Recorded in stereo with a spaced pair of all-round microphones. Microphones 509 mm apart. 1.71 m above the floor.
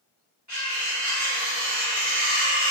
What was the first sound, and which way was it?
Cutlery clinking, 35° right (ahead or behind).